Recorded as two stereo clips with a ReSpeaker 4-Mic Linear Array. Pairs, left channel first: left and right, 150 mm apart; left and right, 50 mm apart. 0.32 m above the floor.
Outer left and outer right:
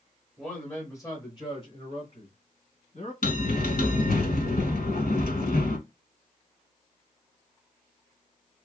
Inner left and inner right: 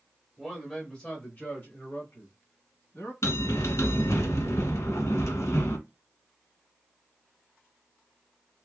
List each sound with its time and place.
0.4 s a man speaking: 5° left (ahead or behind), 1.1 m; by 3.1 s 50° left (ahead or behind), 2 m
3.2 s a bell: 85° left, 0.8 m